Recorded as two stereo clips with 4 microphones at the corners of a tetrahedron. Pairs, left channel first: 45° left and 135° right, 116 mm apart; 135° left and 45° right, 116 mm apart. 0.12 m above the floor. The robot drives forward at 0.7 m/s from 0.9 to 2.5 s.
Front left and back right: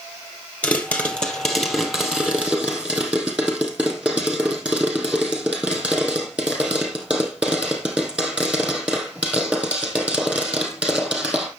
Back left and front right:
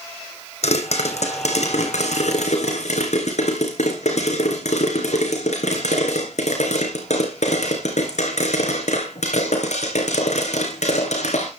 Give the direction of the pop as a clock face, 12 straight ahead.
8 o'clock.